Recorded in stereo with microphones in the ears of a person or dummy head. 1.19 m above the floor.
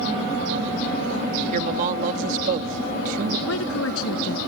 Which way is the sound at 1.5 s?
45° right (ahead or behind).